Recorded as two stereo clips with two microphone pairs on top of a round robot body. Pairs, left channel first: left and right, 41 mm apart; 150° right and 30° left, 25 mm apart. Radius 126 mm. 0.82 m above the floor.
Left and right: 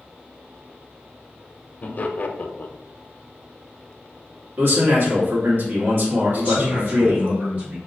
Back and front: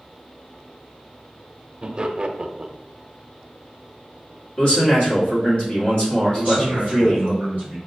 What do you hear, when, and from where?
1.8 s laughter: 45° left, 0.6 m
4.6 s a man speaking: 110° right, 1.5 m
6.3 s a man speaking: 130° right, 1.5 m